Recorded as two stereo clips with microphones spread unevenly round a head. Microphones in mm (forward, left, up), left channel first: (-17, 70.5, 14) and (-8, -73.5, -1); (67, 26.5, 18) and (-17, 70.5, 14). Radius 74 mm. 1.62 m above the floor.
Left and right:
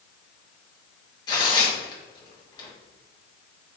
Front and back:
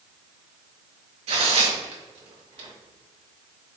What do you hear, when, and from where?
1.3 s tearing paper: 155° left, 1.5 m